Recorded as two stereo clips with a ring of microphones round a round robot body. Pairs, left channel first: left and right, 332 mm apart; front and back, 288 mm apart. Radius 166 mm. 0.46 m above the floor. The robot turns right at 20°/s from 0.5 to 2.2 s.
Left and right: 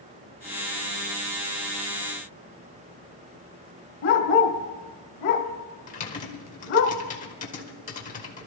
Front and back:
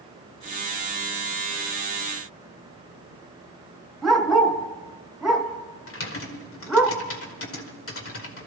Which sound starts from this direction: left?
A dog barking, at 4.0 s.